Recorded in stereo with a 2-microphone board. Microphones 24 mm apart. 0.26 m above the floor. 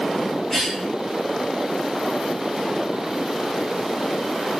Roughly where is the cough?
Centre.